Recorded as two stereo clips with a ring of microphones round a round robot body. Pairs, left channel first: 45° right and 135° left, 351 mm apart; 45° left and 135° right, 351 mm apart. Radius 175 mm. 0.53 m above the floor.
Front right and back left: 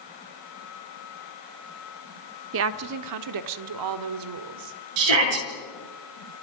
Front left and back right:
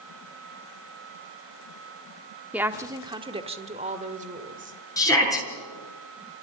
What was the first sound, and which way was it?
A woman speaking, 140° left.